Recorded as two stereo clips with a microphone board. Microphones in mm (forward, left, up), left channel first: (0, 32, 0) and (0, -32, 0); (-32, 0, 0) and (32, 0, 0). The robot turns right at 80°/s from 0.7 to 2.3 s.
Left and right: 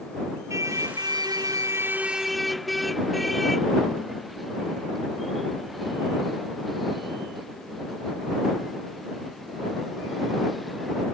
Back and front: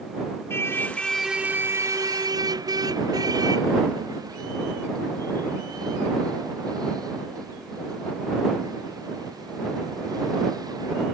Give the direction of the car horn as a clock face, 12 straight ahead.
4 o'clock.